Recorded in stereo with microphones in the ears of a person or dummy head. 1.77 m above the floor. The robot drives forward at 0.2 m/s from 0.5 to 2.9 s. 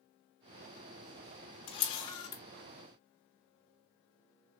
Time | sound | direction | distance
1.7 | a camera shutter | 25° left (ahead or behind) | 0.7 m